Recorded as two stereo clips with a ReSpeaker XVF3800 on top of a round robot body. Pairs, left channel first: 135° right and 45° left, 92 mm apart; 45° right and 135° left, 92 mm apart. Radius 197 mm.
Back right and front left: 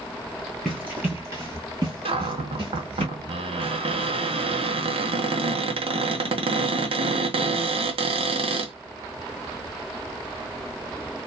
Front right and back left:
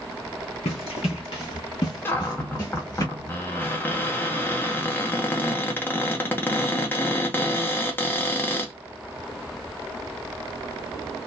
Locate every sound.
0.7 s running footsteps: 45° right, 0.6 m; by 3.0 s 15° left, 1.6 m
2.0 s a cupboard door: 25° left, 0.7 m